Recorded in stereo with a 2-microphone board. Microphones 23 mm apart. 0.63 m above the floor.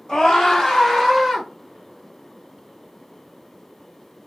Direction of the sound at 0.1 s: 35° left (ahead or behind).